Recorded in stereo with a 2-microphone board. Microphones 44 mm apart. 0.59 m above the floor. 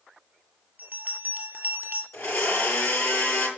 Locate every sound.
0.8 s a bell: 40° right (ahead or behind), 2 m
2.1 s a blender: 85° left, 7.5 m